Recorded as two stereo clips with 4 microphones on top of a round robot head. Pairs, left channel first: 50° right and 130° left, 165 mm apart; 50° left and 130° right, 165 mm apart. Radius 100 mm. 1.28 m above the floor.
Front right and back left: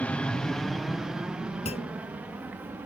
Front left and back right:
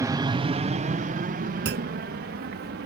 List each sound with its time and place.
0.0 s an aircraft: 110° right; by 2.9 s 150° right
1.6 s a clunk: 105° right